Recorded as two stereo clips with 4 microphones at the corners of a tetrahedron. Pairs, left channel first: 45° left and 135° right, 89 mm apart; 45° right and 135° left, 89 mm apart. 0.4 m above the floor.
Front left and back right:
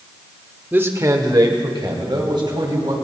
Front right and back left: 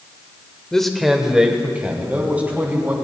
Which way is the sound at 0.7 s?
115° right.